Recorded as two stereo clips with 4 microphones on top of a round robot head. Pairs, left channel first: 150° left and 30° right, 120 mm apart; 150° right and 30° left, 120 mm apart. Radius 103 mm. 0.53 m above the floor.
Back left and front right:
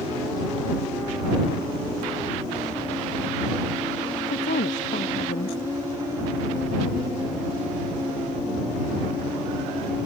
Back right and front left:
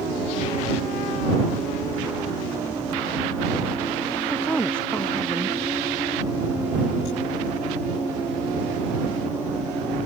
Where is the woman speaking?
130° left.